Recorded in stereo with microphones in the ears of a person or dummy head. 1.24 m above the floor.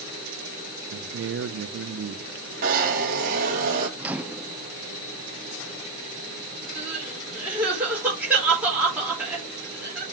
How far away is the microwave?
About 0.5 m.